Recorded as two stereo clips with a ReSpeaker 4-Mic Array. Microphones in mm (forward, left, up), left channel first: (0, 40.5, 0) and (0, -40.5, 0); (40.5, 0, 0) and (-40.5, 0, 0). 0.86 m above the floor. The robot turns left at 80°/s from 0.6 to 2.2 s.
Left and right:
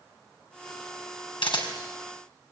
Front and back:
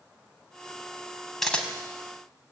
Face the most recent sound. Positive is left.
turn(degrees=25)